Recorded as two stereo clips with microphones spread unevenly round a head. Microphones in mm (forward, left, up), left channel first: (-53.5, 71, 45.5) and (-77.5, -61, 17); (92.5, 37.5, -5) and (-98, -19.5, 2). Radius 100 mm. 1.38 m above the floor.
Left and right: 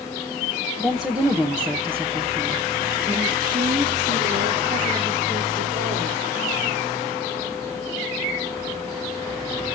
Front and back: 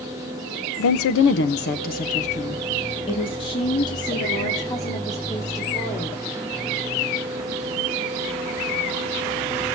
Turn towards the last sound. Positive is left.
turn(degrees=-60)